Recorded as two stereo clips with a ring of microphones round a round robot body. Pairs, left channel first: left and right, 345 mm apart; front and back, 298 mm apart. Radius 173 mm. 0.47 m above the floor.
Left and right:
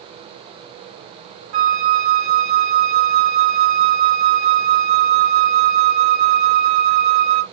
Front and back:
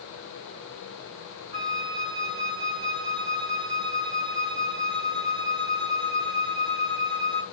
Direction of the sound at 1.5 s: 130° right.